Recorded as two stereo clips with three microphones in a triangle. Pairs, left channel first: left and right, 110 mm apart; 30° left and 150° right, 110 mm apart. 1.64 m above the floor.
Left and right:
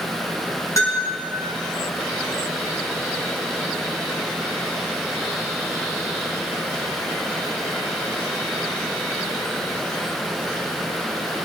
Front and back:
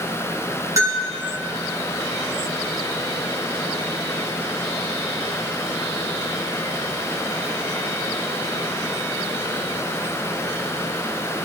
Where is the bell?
150° left, 6 m.